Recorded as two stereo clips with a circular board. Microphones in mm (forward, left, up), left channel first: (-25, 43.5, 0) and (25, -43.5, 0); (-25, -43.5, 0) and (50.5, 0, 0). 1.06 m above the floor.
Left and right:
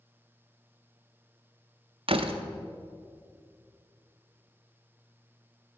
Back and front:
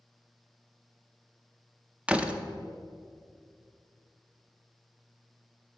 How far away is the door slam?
About 0.5 m.